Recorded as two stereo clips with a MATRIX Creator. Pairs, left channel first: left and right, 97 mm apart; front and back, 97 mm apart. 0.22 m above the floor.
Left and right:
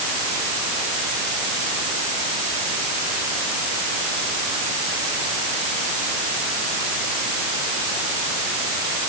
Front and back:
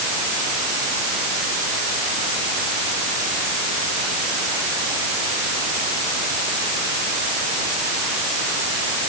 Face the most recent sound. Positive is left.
No sound to turn to.